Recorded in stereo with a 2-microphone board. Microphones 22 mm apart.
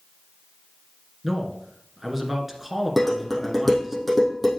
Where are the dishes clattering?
Centre (ahead or behind), 3 m.